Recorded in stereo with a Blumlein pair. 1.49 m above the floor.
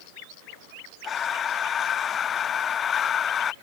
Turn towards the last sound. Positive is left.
turn(degrees=25)